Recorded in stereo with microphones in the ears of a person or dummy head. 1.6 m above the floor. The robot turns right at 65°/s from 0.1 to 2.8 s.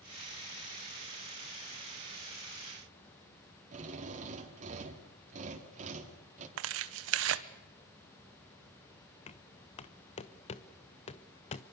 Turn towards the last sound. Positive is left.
turn(degrees=35)  # may be behind; listen again after turning